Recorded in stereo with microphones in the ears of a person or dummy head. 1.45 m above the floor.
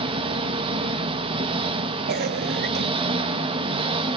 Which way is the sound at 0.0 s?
30° right (ahead or behind).